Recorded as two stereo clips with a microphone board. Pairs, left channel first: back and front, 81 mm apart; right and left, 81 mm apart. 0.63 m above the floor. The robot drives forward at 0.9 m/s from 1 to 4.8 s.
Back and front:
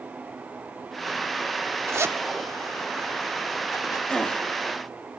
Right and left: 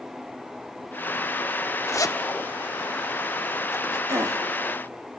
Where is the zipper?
45° right, 1.2 m; by 4.0 s 150° right, 1.5 m.